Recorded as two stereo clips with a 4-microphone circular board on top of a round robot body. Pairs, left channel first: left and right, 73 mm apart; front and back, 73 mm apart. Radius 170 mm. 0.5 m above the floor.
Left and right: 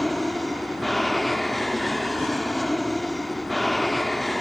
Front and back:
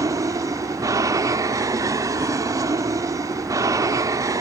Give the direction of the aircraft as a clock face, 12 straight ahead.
6 o'clock.